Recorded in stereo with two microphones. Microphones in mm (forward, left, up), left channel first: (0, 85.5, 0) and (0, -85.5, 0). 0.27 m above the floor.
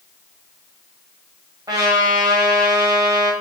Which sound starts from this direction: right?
A trumpet, at 1.7 s.